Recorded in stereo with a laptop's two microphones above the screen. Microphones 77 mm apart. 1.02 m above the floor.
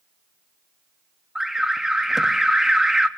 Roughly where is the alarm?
Centre.